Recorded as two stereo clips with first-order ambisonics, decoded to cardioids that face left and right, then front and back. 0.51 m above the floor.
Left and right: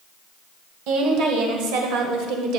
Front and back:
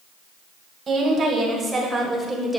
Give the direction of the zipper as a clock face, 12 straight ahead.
No zipper in this recording.